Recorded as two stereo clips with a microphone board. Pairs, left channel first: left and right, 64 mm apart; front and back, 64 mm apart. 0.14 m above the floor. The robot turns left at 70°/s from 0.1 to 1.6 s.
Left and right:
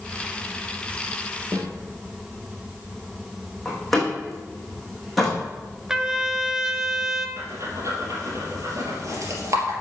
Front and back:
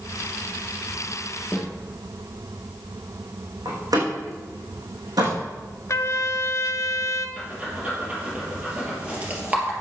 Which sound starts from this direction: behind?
A door slam, at 3.6 s.